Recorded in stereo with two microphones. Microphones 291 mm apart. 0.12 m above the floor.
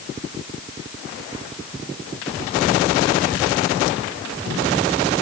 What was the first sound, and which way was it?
Only background noise.